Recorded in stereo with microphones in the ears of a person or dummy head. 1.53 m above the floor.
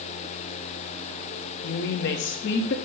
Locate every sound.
1.6 s a woman speaking: 55° left (ahead or behind), 0.5 m